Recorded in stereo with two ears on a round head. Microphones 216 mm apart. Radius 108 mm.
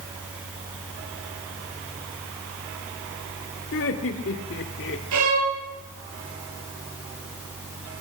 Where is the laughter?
60° left (ahead or behind), 2.5 m; by 5.0 s 55° left (ahead or behind), 1.8 m.